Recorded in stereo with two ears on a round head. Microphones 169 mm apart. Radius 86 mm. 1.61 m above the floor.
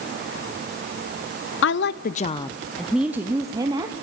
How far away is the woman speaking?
About 0.6 m.